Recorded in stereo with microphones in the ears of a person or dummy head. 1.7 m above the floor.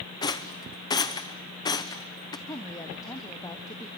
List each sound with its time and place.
0.2 s a rattle: 20° left (ahead or behind), 0.7 m
2.5 s a woman speaking: 15° left (ahead or behind), 1.1 m